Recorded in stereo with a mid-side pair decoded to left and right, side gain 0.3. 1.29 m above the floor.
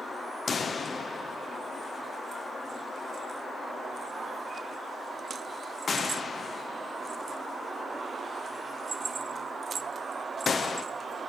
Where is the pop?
65° left, 0.8 m.